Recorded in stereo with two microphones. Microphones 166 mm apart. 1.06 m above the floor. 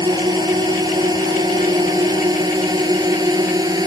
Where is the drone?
25° right (ahead or behind).